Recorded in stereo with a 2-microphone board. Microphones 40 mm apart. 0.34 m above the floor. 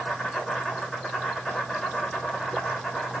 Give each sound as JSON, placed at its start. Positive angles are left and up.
{"t": 0.0, "sound": "an insect", "side_deg": 10, "distance_m": 5.0}